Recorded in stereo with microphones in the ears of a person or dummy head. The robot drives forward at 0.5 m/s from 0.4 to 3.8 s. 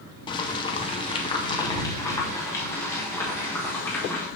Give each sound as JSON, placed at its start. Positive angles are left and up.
{"t": 0.3, "sound": "boiling", "side_deg": 20, "distance_m": 0.6}